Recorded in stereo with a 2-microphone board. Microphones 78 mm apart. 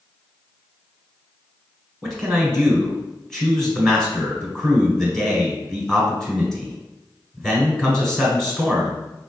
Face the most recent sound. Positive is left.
turn(degrees=5)  # may be behind; listen again after turning